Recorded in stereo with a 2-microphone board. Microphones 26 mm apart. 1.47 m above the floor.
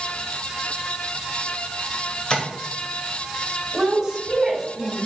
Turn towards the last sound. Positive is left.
turn(degrees=-15)  # may be behind; listen again after turning